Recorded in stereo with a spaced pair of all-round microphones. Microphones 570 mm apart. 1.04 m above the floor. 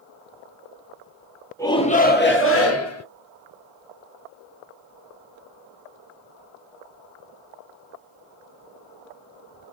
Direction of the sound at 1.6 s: 5° left (ahead or behind).